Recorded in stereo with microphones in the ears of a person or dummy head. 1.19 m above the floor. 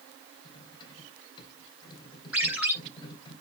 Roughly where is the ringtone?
Centre.